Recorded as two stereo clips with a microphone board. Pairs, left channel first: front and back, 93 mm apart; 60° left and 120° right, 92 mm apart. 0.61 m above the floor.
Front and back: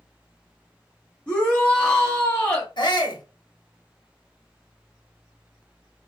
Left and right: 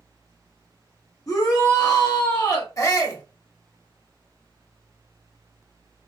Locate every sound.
1.3 s a shout: 70° left, 1.3 m
2.8 s a shout: 15° left, 1.0 m